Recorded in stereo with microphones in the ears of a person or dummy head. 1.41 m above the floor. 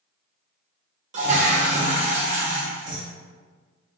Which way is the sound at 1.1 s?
45° right (ahead or behind).